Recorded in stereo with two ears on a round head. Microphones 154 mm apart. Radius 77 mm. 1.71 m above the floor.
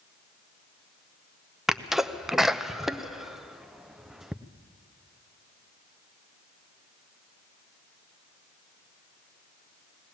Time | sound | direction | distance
1.7 | a sneeze | centre (ahead or behind) | 0.7 m